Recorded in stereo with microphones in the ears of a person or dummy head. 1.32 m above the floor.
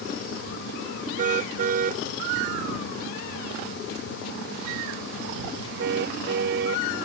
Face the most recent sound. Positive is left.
turn(degrees=-65)  # may be behind; listen again after turning